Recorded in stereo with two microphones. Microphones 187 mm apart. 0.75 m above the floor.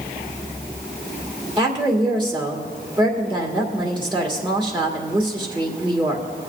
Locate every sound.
1.6 s a woman speaking: 25° right (ahead or behind), 2 m